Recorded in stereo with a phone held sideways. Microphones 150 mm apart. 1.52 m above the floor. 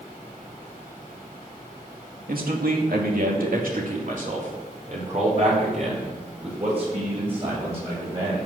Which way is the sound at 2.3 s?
75° right (ahead or behind).